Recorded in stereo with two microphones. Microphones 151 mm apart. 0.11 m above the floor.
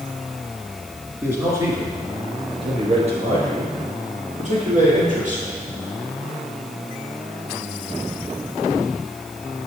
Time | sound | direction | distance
1.2 | a man speaking | 15° right (ahead or behind) | 1.4 m